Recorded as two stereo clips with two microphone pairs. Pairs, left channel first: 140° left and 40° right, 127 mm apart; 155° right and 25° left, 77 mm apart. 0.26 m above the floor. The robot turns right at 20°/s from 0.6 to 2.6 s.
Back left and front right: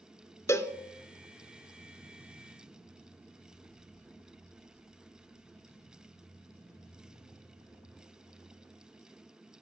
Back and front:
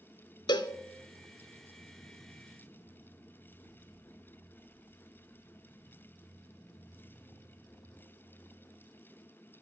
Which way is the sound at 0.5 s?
150° right.